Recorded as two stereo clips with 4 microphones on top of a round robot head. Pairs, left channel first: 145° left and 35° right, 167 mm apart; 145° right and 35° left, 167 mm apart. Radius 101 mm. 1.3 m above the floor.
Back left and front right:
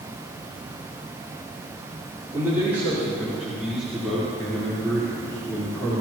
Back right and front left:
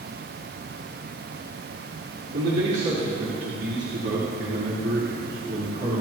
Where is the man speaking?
40° left, 4 m; by 6.0 s 70° left, 4 m.